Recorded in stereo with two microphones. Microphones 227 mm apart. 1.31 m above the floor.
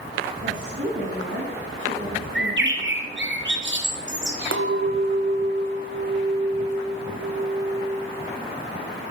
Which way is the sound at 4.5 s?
60° right (ahead or behind).